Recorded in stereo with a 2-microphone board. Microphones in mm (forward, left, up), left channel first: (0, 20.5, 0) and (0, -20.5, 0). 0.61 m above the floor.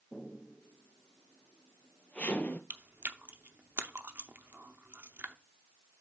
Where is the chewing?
65° right (ahead or behind), 0.6 m.